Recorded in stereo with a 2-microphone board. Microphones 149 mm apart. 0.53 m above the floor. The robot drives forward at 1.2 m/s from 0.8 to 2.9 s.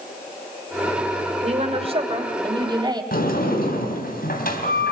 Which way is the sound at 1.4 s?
50° right (ahead or behind).